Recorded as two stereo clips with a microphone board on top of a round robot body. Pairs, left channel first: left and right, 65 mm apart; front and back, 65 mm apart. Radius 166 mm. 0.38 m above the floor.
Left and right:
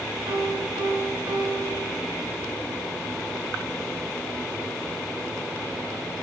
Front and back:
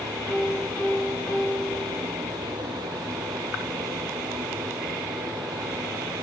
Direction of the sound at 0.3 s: 75° right.